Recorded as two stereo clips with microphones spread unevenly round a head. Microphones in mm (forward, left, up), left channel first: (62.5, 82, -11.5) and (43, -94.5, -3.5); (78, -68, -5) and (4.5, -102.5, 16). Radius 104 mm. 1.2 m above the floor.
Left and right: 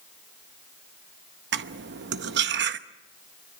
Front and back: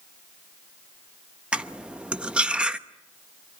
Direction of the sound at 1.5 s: 80° right.